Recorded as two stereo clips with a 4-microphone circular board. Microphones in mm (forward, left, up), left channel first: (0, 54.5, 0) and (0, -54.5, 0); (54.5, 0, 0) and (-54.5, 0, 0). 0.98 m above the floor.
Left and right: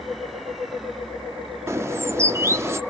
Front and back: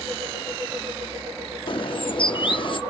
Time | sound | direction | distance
1.7 | a bird | 30° right | 0.7 m